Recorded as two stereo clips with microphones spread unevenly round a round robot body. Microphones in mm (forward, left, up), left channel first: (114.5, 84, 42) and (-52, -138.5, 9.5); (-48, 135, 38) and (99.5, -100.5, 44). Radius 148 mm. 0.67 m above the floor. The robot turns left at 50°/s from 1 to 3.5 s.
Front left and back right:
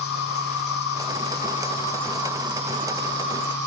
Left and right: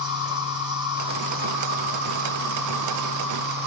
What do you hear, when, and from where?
0.0 s an insect: 15° left, 1.7 m; by 3.7 s 110° right, 1.7 m